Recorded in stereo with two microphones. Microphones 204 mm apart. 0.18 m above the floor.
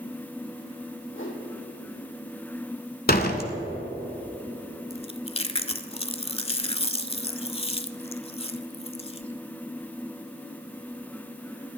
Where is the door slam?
50° left (ahead or behind), 1.1 m.